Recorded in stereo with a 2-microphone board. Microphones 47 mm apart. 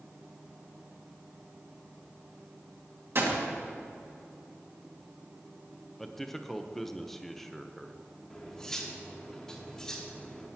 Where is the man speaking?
5° left (ahead or behind), 0.8 m.